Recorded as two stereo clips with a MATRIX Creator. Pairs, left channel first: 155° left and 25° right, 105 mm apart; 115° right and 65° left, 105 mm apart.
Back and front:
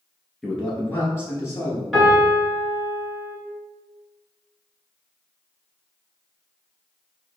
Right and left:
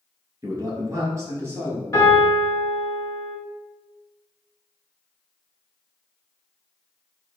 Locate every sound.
0.4 s a man speaking: 75° left, 1.5 m; by 1.8 s 125° left, 1.8 m
1.9 s a piano: 110° right, 1.8 m